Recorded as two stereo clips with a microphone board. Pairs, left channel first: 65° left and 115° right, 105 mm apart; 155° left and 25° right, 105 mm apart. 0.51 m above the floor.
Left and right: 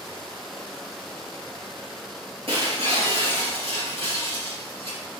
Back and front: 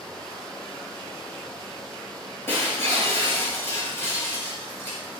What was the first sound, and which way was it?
Breaking glass, 135° right.